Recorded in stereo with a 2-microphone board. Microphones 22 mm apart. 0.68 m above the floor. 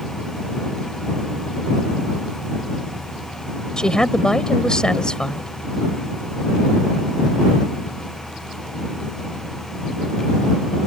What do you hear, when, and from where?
3.8 s a woman speaking: 40° left (ahead or behind)